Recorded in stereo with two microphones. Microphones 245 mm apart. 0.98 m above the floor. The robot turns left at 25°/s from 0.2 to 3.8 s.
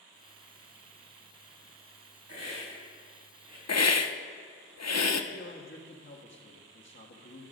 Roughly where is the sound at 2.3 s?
Right.